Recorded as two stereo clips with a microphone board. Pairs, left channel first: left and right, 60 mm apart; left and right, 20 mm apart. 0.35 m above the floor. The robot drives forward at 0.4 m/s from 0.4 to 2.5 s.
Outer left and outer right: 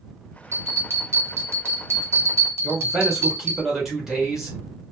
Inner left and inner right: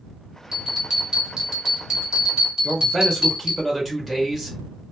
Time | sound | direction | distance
0.5 | a bell | 45° right (ahead or behind) | 1.9 m
2.6 | a man speaking | 10° right (ahead or behind) | 2.0 m